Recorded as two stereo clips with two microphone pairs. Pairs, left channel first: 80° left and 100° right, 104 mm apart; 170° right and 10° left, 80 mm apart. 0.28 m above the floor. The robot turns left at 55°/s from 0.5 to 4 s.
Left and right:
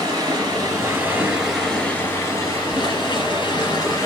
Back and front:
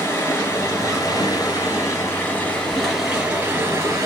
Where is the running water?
130° right, 1.9 m; by 4.1 s 35° left, 1.9 m.